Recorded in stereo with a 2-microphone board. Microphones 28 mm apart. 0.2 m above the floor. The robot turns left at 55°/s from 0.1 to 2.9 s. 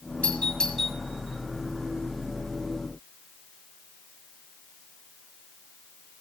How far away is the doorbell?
About 8 m.